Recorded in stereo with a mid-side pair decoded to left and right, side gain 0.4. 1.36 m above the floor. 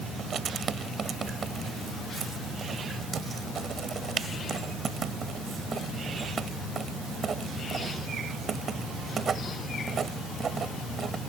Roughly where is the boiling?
No boiling in this recording.